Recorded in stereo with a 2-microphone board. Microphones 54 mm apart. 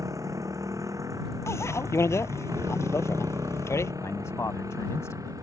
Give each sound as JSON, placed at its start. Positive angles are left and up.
{"t": 0.0, "sound": "a motorcycle", "side_deg": -75}
{"t": 1.5, "sound": "a bicycle bell", "side_deg": 55}
{"t": 4.0, "sound": "a man speaking", "side_deg": 65}